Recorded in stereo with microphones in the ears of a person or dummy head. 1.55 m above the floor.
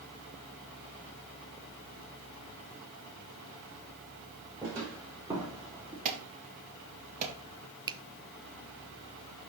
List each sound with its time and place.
4.6 s footsteps: 15° right (ahead or behind), 5 m
6.0 s an alarm: 40° right (ahead or behind), 2 m
7.9 s a finger snap: 20° right (ahead or behind), 0.6 m